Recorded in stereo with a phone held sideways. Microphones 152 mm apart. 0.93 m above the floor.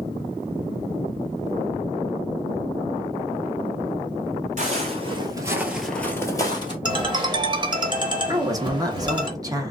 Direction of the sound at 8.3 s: 20° right (ahead or behind).